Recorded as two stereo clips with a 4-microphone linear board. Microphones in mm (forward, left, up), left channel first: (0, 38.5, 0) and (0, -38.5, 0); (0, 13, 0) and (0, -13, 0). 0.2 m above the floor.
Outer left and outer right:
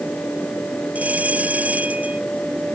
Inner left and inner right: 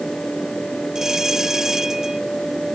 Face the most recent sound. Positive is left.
turn(degrees=-20)  # may be behind; listen again after turning